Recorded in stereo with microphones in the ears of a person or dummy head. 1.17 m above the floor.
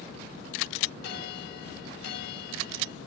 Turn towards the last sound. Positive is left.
turn(degrees=75)  # may be behind; listen again after turning